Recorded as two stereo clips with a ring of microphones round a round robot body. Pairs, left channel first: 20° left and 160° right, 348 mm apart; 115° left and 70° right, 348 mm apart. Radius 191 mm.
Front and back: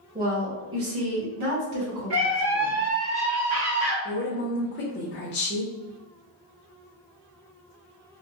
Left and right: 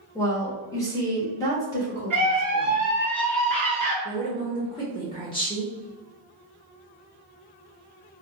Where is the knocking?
No knocking in this recording.